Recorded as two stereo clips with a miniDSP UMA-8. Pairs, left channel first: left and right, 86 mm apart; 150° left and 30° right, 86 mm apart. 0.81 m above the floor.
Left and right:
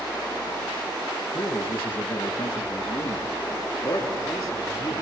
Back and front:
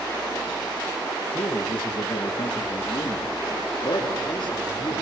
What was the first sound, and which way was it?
A man speaking, 155° left.